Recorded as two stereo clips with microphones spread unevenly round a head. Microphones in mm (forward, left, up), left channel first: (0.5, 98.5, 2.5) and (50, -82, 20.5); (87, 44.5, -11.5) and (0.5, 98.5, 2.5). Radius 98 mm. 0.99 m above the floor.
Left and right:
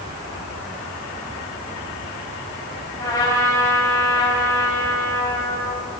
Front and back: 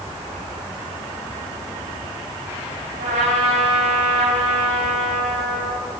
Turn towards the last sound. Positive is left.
turn(degrees=180)